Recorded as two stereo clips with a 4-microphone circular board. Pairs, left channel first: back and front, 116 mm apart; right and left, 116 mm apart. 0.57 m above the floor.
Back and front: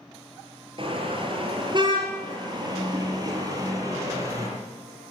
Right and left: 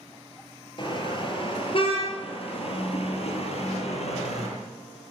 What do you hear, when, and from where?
0.8 s a car horn: 45° right, 5 m; by 4.5 s 65° right, 6.5 m